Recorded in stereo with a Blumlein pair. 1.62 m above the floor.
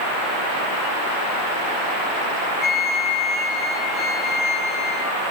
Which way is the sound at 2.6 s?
35° left.